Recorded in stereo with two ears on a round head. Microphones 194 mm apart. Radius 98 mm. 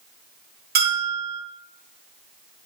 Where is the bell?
50° right (ahead or behind), 3.5 m.